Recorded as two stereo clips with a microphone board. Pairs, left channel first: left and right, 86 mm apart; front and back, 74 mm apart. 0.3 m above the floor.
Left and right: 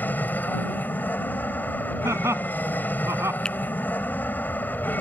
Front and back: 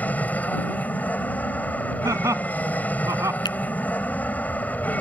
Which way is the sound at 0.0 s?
45° left.